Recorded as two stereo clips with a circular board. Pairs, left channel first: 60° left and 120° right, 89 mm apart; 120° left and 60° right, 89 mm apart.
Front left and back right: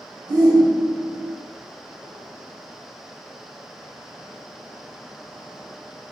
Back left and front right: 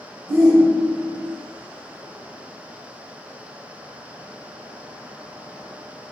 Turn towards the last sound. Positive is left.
turn(degrees=-150)